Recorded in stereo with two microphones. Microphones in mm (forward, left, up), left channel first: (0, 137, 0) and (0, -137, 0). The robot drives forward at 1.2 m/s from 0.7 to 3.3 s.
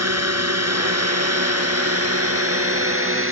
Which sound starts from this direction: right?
A drone, at 0.0 s.